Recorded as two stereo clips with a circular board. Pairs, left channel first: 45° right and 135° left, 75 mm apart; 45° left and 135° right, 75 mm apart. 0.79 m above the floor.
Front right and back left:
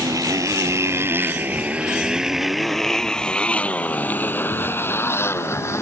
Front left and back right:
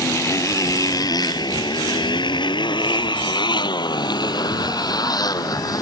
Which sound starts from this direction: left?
A motorcycle, at 0.0 s.